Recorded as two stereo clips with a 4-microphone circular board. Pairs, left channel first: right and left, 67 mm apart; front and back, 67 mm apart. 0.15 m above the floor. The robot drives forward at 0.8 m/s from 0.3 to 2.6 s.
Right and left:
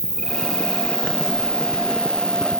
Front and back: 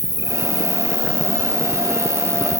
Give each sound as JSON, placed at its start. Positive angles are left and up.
{"t": 0.0, "sound": "an insect", "azimuth_deg": -165}